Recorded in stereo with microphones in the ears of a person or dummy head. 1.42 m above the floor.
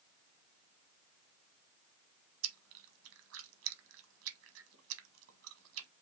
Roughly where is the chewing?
Right.